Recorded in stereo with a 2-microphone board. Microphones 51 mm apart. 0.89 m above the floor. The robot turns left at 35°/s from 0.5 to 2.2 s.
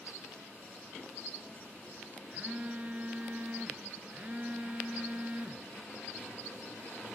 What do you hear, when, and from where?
2.3 s a phone buzzing: 25° right (ahead or behind), 0.5 m